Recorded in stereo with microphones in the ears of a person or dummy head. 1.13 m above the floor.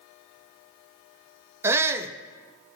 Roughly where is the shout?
Centre.